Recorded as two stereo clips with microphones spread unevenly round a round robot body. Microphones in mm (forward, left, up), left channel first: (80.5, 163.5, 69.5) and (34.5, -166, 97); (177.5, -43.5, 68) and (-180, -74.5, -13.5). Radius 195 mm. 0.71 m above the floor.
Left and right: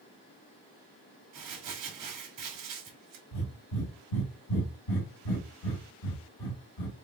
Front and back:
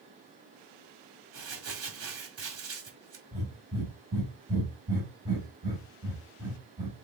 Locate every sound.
1.3 s crumpling: 130° right, 1.9 m
3.3 s breathing: 105° left, 1.7 m